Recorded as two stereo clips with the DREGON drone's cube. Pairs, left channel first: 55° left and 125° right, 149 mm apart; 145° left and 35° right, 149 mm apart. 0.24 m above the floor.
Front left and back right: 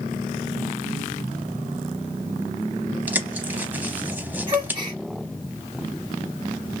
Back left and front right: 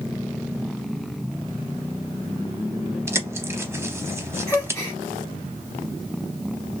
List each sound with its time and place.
3.1 s a bird: 70° right, 0.5 m
4.5 s a gasp: 155° right, 0.8 m